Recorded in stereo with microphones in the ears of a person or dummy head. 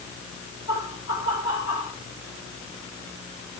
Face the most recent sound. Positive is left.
turn(degrees=65)  # may be behind; listen again after turning